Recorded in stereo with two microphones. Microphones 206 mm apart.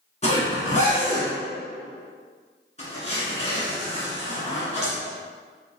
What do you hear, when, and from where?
0.2 s a zipper: 35° left (ahead or behind), 1.7 m